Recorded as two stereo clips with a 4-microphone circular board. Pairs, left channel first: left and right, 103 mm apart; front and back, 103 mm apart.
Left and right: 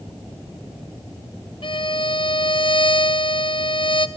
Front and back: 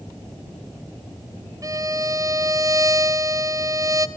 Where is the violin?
125° left, 0.9 m.